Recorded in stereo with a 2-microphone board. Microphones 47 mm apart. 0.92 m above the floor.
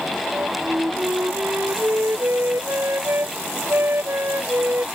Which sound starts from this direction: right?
A flute, at 0.3 s.